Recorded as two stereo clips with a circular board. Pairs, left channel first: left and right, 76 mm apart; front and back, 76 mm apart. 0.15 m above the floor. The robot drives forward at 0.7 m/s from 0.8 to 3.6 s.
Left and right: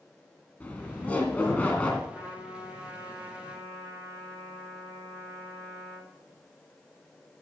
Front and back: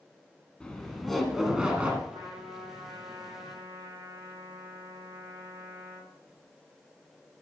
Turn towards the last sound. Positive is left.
turn(degrees=170)